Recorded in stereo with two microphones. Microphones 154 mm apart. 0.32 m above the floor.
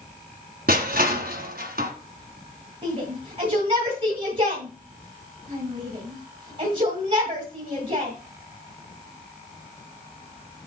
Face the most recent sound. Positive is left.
turn(degrees=-40)  # may be behind; listen again after turning